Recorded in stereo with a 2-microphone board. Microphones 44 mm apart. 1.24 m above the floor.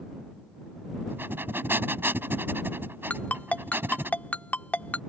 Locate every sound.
1.1 s breathing: 55° right (ahead or behind)
3.1 s a ringtone: 35° left (ahead or behind)